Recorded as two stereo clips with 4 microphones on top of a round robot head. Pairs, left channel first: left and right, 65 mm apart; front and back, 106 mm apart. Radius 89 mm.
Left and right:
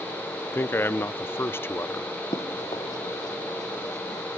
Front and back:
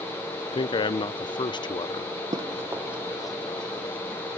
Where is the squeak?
No squeak in this recording.